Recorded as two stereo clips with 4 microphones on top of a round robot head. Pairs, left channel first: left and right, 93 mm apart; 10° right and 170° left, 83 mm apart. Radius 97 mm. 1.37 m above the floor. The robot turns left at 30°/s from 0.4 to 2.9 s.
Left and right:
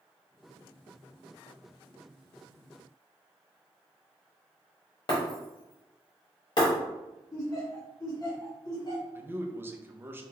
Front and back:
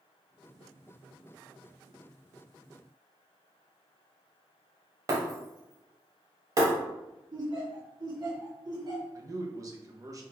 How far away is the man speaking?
About 0.7 m.